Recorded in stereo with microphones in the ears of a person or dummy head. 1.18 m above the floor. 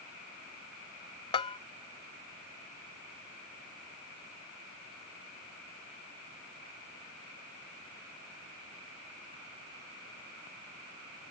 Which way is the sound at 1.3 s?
35° left (ahead or behind).